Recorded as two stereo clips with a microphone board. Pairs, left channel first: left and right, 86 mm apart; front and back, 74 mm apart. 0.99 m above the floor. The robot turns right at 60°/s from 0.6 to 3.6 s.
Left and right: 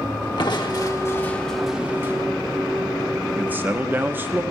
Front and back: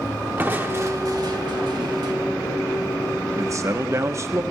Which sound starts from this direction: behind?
A man speaking, at 3.4 s.